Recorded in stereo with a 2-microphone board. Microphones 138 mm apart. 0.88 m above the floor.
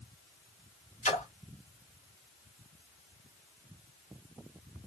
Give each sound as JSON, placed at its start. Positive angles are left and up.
{"t": 1.0, "sound": "a splash", "side_deg": 60, "distance_m": 2.0}